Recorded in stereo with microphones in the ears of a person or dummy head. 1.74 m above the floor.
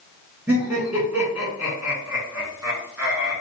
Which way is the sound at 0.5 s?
Centre (ahead or behind).